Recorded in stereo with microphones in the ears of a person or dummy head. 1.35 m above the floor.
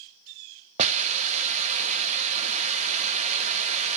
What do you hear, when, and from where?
0.8 s a hiss: 40° right (ahead or behind), 0.6 m